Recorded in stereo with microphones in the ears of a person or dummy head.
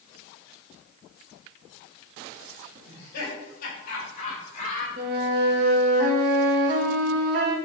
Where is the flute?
50° right (ahead or behind), 1.2 m.